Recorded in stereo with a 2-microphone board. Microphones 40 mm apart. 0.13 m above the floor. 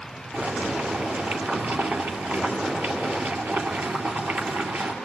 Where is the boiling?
50° right (ahead or behind), 2.5 m.